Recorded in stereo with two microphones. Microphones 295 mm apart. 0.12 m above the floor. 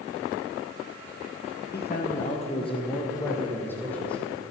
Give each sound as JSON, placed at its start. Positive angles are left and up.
{"t": 1.7, "sound": "a man speaking", "side_deg": 35, "distance_m": 2.5}